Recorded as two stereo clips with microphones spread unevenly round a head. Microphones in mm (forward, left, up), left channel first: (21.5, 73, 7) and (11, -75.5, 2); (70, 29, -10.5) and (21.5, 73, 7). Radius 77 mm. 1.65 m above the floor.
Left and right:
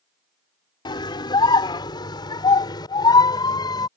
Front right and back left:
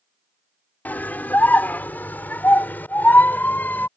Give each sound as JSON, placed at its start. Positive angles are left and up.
{"t": 0.8, "sound": "a scream", "azimuth_deg": 25}